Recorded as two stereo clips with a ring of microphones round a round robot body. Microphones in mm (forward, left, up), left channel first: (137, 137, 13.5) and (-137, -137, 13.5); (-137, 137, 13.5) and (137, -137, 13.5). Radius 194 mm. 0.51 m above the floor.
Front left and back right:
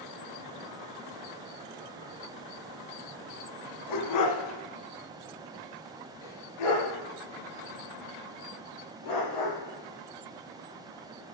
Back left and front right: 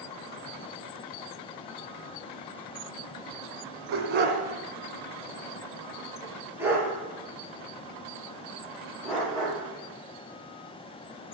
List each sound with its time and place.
3.9 s a dog barking: 15° left, 1.0 m; by 11.2 s 50° left, 5 m